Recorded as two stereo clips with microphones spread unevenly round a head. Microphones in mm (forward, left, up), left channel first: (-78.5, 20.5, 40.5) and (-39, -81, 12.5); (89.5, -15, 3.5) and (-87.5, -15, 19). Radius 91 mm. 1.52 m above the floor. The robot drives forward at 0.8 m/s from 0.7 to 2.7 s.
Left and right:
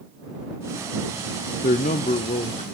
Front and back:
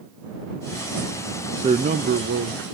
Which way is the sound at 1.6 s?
110° left.